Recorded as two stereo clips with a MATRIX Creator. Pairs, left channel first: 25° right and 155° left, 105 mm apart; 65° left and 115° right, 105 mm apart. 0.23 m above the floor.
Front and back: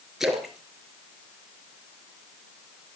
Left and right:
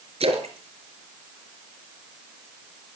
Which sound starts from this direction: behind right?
A splash, at 0.2 s.